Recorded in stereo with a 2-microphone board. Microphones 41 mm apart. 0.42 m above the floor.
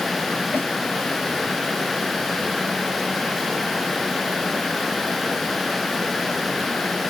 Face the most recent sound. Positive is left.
turn(degrees=55)  # may be behind; listen again after turning